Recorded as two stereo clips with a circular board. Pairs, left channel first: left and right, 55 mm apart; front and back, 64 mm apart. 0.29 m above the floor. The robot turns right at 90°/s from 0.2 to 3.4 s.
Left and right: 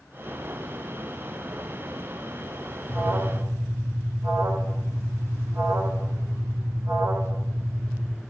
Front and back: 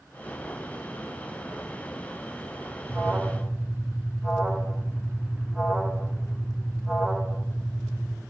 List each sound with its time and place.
2.9 s an alarm: 145° right, 1.6 m; by 8.2 s 100° right, 1.6 m